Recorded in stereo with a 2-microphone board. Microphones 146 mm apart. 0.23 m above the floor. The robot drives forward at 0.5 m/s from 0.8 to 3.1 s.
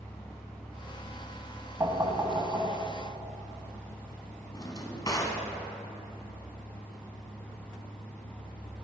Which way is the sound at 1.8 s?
25° right (ahead or behind).